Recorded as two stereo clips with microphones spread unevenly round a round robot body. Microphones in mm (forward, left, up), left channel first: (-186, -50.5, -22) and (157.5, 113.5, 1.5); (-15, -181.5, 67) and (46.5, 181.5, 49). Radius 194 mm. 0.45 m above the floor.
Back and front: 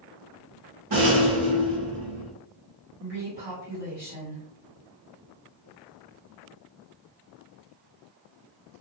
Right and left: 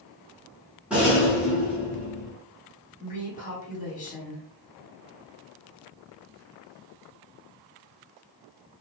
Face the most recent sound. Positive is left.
turn(degrees=-35)